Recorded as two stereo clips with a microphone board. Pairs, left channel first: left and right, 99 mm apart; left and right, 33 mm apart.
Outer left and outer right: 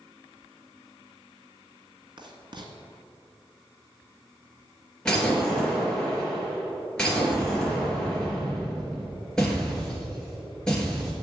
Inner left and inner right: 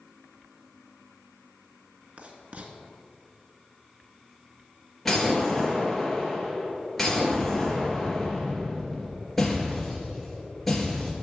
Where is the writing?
50° right (ahead or behind), 1.6 m.